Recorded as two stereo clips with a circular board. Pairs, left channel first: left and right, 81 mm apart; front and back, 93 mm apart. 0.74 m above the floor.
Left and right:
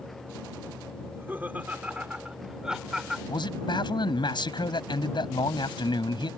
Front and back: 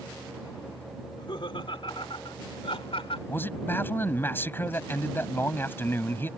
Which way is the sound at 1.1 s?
30° right.